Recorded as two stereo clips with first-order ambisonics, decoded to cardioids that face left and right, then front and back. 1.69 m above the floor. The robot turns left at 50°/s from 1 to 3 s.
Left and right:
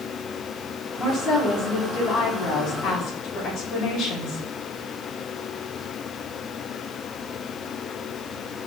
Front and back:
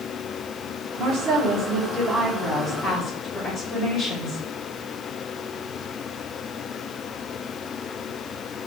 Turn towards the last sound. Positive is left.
turn(degrees=55)